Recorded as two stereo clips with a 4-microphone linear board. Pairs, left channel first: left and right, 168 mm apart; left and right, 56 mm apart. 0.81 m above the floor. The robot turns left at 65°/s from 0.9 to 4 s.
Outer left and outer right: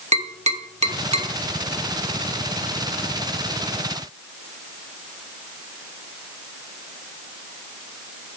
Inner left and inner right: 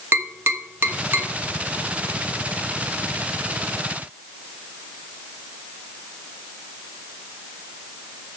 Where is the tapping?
40° right (ahead or behind), 1.2 m; by 1.3 s 35° right (ahead or behind), 1.2 m.